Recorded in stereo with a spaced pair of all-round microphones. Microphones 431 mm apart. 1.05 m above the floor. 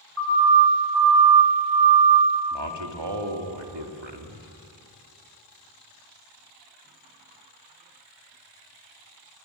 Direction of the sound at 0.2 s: 30° right (ahead or behind).